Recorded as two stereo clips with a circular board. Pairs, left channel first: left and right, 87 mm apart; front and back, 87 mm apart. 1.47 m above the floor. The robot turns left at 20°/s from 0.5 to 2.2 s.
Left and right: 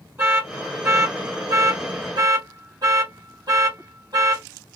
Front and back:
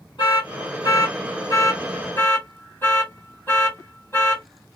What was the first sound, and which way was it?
An alarm, 25° right.